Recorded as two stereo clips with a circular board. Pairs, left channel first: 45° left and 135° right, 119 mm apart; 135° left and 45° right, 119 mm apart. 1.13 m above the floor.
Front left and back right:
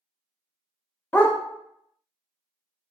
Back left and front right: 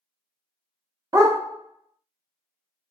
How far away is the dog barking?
About 0.6 m.